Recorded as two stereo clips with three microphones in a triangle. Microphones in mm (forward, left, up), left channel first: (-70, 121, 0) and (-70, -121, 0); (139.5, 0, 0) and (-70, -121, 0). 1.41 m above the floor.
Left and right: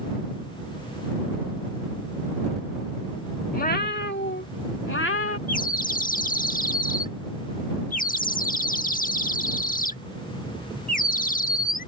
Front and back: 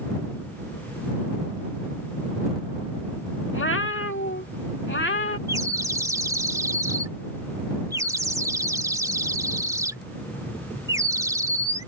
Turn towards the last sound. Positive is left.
turn(degrees=135)